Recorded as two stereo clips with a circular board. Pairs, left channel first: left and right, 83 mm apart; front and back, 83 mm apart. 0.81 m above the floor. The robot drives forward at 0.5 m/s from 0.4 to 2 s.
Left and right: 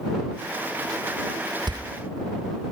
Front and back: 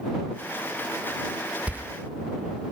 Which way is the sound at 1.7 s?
105° right.